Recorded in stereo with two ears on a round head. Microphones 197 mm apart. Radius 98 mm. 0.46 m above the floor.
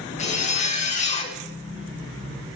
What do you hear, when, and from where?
0.2 s a zipper: 35° left (ahead or behind), 0.8 m